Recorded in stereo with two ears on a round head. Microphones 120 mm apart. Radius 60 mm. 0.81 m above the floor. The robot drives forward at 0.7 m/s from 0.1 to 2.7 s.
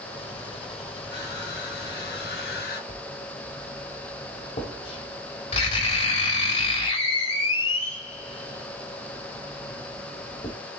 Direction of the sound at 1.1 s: 80° left.